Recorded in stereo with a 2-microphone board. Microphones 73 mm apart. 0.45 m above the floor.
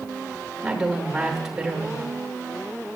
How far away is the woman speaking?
About 0.9 m.